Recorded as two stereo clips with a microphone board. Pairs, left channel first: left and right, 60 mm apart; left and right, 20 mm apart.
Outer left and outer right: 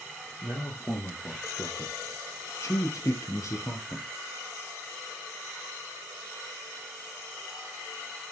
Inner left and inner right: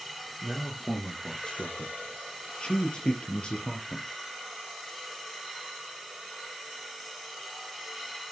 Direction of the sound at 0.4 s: 50° left (ahead or behind).